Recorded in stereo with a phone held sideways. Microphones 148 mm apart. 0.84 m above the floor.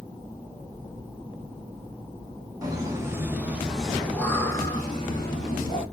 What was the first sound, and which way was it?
Laughter, 25° right (ahead or behind).